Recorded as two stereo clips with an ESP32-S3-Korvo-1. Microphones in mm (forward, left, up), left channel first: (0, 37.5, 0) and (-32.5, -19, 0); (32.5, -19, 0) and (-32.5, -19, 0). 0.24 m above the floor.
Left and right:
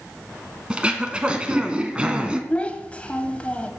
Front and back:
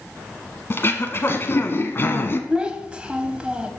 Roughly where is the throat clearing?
Ahead right.